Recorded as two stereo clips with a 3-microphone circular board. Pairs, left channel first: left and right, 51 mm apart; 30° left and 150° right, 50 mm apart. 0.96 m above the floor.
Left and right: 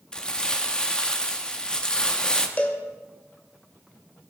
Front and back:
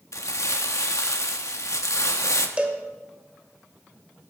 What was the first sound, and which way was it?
Crumpling, 15° left.